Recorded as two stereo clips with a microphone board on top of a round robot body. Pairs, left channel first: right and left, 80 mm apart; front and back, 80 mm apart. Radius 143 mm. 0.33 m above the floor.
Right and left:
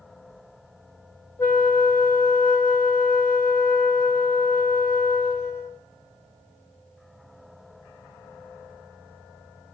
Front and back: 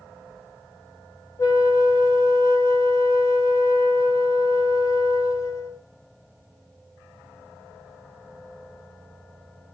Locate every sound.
1.4 s a flute: 30° right, 2 m